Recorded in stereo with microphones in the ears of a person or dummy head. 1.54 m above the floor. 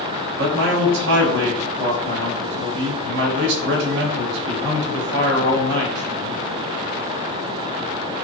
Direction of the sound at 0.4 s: 70° right (ahead or behind).